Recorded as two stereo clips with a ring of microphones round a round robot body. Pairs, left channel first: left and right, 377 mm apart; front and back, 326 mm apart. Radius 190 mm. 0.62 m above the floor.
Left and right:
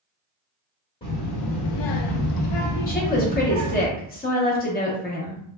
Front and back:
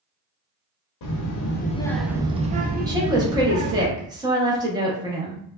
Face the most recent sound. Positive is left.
turn(degrees=120)